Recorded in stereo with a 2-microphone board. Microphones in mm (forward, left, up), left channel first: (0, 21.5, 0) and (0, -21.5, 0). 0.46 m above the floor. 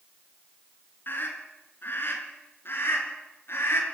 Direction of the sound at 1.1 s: 55° left (ahead or behind).